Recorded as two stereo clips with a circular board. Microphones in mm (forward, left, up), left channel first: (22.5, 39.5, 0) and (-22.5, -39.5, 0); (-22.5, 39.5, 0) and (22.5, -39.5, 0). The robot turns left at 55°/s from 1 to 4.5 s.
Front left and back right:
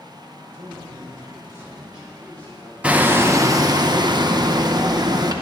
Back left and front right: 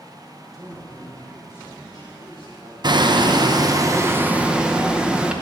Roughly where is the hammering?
Ahead right.